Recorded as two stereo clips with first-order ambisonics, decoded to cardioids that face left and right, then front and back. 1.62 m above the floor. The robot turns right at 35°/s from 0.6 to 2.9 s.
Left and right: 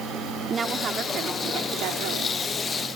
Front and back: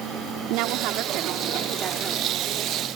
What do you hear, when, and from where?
0.5 s a woman speaking: 160° right; by 2.4 s 100° right